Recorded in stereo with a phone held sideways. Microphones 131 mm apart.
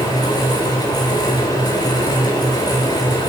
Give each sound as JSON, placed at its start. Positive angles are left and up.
{"t": 0.0, "sound": "a fan", "side_deg": 30, "distance_m": 4.0}